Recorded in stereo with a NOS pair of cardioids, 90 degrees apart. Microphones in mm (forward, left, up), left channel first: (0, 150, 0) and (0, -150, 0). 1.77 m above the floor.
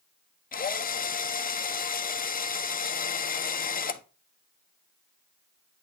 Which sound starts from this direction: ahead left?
A drill, at 0.5 s.